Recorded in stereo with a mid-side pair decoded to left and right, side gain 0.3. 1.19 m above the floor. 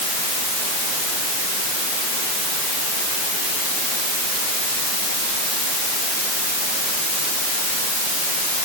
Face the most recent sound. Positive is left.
No sound to turn to.